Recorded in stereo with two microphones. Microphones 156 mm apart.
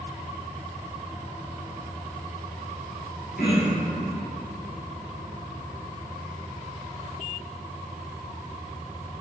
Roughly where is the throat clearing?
Left.